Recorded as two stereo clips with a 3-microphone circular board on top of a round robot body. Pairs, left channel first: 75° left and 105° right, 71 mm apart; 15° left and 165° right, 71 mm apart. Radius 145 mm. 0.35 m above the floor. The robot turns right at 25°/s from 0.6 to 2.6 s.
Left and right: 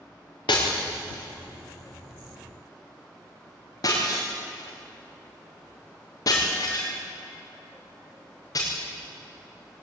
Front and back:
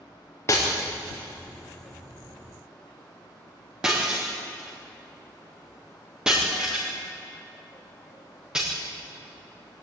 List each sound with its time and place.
0.5 s breaking glass: 65° left, 6 m; by 8.7 s 115° left, 6 m